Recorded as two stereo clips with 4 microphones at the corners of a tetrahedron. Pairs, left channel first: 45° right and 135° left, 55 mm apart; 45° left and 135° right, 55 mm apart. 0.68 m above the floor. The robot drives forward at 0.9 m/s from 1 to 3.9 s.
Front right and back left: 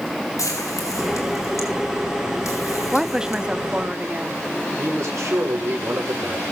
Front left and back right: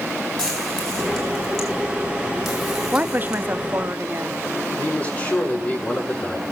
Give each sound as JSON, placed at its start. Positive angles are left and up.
{"t": 0.4, "sound": "frying", "azimuth_deg": -35, "distance_m": 5.0}
{"t": 2.9, "sound": "a woman speaking", "azimuth_deg": -140, "distance_m": 0.8}
{"t": 4.8, "sound": "a man speaking", "azimuth_deg": 110, "distance_m": 6.5}